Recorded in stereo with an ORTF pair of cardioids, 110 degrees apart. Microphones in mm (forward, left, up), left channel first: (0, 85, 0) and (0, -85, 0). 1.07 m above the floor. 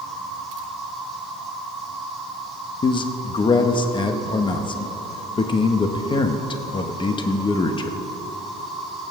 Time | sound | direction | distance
0.0 | an insect | straight ahead | 4 m
2.8 | a man speaking | 30° left | 0.9 m